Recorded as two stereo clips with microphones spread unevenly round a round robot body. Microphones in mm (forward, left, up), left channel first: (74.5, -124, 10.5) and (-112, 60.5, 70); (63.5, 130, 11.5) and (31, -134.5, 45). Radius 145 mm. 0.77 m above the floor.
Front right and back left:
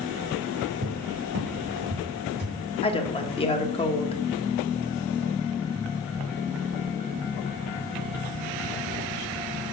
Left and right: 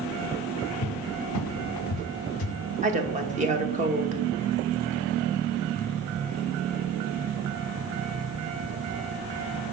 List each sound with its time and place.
0.8 s a cupboard door: 105° left, 0.6 m
2.8 s a woman speaking: 45° right, 1.1 m